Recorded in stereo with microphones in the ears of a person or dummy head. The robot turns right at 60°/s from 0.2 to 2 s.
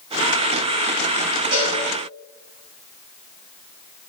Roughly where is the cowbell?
Right.